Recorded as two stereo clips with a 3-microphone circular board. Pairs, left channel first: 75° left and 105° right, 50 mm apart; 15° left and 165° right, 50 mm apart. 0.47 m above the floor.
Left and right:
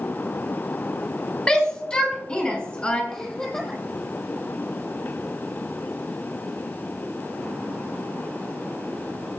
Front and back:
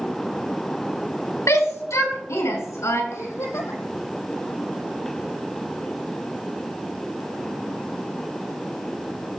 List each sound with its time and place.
1.5 s a shout: 5° left, 4 m
3.1 s a giggle: straight ahead, 3.5 m